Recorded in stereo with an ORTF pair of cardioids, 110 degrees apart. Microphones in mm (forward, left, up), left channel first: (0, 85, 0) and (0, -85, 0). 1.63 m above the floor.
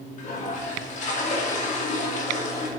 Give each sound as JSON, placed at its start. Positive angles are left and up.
{"t": 0.2, "sound": "a toilet flushing", "azimuth_deg": 50, "distance_m": 2.5}